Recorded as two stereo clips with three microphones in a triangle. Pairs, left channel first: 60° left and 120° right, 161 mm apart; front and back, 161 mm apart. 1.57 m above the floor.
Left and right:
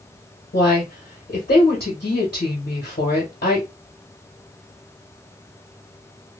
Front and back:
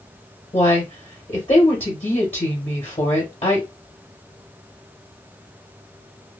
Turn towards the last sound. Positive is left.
turn(degrees=55)